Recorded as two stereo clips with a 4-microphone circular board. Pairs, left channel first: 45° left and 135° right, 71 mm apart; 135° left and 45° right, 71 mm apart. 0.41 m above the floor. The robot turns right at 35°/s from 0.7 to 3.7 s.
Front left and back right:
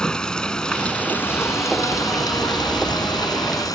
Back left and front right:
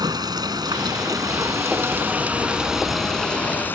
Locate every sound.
0.0 s running water: 35° right; by 3.8 s 70° left